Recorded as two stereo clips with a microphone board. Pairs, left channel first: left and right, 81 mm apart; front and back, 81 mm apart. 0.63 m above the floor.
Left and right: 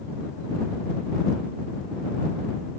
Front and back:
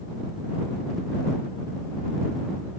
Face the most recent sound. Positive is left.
No sound to turn to.